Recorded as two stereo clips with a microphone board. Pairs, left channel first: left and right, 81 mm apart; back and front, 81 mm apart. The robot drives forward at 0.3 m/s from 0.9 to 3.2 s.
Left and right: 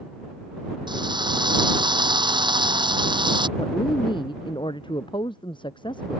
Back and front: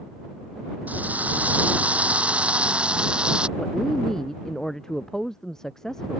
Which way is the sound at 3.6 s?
95° left.